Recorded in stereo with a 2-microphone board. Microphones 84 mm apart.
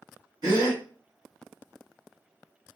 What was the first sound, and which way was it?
A gasp, 55° right (ahead or behind).